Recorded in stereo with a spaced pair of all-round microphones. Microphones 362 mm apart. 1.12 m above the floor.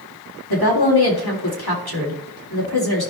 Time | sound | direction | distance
0.5 | a woman speaking | 85° left | 3 m